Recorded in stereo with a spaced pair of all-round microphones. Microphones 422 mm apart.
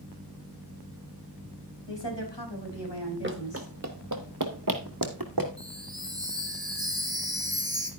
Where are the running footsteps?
25° right (ahead or behind), 1.1 m; by 5.5 s 55° right (ahead or behind), 2 m.